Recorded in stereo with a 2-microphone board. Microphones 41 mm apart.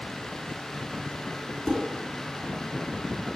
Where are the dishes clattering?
10° left (ahead or behind), 2.0 m.